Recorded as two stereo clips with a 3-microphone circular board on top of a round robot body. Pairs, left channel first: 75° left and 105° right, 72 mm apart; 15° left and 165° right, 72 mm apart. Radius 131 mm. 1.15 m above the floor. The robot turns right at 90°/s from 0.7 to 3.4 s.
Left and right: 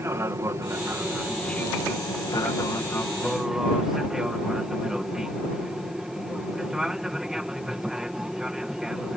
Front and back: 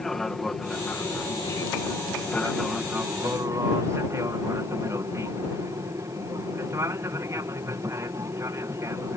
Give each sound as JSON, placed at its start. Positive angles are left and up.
{"t": 0.0, "sound": "an aircraft", "azimuth_deg": -70}